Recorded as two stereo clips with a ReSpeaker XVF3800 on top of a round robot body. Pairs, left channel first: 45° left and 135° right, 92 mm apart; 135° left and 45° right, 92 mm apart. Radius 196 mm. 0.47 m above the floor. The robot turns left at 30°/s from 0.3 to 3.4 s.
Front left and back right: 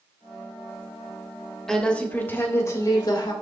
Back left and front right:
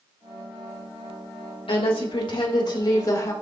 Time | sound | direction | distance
1.7 | a woman speaking | 130° left | 3 m